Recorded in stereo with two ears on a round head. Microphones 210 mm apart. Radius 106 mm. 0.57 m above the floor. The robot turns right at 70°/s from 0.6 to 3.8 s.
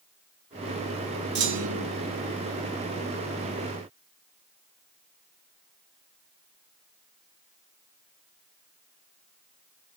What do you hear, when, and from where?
1.4 s a clunk: 130° right, 2.5 m; by 1.9 s 95° right, 2.5 m